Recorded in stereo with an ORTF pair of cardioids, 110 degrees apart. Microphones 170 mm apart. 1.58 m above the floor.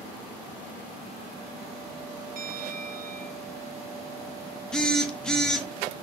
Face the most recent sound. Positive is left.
turn(degrees=5)